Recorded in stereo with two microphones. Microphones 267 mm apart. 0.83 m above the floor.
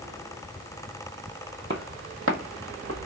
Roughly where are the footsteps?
Right.